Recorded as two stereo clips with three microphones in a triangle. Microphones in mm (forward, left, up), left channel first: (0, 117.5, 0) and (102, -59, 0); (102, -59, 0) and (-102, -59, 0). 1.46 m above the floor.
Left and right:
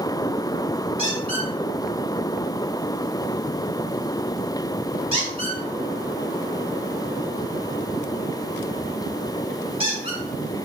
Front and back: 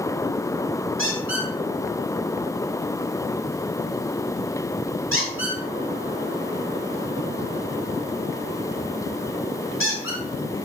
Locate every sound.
1.0 s a squeak: 5° left, 5 m